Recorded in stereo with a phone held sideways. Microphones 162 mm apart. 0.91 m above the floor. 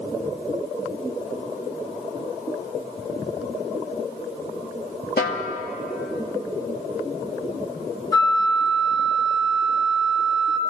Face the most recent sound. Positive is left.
turn(degrees=20)  # may be behind; listen again after turning